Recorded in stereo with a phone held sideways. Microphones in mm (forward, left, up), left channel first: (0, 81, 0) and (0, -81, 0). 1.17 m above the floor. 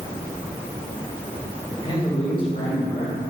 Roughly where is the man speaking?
Left.